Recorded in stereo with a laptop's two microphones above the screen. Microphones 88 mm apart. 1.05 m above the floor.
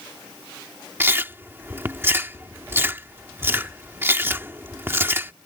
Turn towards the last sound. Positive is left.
turn(degrees=-25)  # may be behind; listen again after turning